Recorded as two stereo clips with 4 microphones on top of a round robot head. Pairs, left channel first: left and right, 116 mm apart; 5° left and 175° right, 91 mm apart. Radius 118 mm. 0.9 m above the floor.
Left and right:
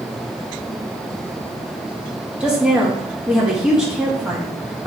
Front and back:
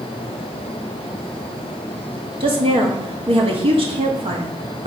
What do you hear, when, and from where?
2.4 s a woman speaking: 170° right, 1.8 m